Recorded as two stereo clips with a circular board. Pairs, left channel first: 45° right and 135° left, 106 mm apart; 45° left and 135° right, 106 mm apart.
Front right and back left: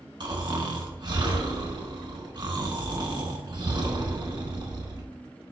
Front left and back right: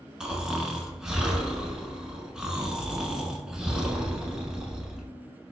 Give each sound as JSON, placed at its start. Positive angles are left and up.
{"t": 0.2, "sound": "snoring", "azimuth_deg": 145, "distance_m": 1.0}